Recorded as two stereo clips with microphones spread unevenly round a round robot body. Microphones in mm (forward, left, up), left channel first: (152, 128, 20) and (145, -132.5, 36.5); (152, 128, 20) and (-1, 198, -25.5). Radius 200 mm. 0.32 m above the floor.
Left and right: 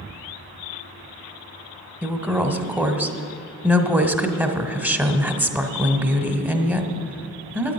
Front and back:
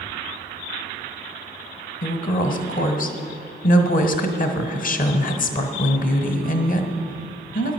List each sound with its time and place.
2.0 s a woman speaking: 5° right, 1.2 m